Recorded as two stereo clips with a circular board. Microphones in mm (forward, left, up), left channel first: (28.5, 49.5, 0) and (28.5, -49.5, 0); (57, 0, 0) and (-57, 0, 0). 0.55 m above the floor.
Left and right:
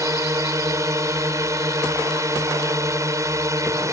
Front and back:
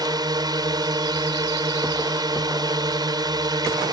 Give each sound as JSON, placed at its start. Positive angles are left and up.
{"t": 0.0, "sound": "a drone", "azimuth_deg": -140}